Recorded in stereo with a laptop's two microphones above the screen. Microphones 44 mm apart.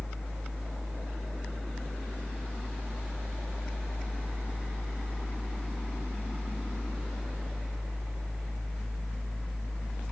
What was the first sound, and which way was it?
A fan, 15° left (ahead or behind).